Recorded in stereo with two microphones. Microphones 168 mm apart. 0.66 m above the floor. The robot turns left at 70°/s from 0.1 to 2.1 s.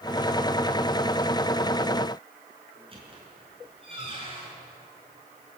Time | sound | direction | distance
2.8 | a squeak | 35° right (ahead or behind) | 5 m